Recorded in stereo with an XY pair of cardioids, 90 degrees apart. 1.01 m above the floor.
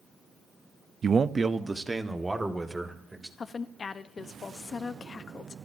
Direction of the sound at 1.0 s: 55° right.